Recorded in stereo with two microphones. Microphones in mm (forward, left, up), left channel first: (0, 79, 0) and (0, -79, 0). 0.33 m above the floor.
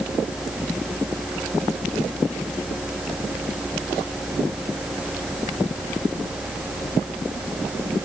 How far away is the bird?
I don't hear a bird.